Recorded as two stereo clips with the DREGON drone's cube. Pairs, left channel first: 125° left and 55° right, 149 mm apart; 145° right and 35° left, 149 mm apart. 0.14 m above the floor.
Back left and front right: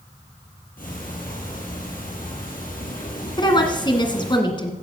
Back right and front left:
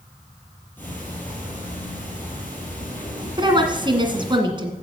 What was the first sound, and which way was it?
Ticking, 135° left.